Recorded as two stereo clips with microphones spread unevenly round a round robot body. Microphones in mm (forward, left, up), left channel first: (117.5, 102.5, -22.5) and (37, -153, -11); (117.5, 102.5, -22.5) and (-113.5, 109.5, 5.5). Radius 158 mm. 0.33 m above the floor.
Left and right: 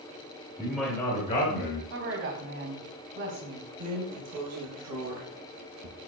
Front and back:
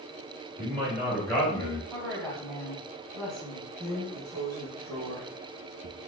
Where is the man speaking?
165° right, 1.2 m; by 1.8 s 60° left, 1.6 m.